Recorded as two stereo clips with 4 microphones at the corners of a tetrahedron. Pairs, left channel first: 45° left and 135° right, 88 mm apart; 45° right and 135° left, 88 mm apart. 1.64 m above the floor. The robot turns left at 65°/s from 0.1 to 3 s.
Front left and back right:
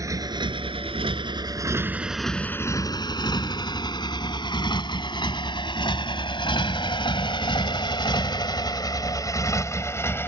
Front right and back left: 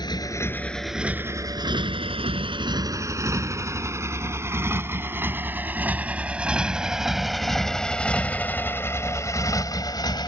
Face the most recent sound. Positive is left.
turn(degrees=-15)